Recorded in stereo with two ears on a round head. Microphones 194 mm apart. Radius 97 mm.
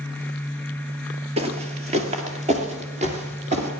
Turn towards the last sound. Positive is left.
turn(degrees=-30)  # may be behind; listen again after turning